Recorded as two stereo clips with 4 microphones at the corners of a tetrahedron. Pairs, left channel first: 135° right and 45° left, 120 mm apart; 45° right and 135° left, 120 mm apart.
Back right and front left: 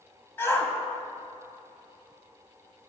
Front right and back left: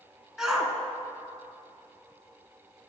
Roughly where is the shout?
Behind right.